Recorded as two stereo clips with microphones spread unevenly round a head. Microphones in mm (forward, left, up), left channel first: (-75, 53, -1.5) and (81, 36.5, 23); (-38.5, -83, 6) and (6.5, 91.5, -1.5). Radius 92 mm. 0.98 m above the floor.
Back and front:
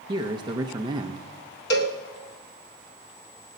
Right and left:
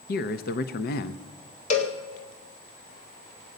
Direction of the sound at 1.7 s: 155° right.